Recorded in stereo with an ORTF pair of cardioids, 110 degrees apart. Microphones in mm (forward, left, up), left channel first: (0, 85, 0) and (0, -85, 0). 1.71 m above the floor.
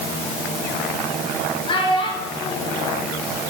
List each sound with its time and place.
1.7 s a child speaking: 30° left, 4.5 m